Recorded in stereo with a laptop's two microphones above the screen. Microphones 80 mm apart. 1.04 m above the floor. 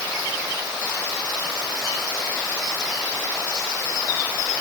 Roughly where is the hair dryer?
No hair dryer in this recording.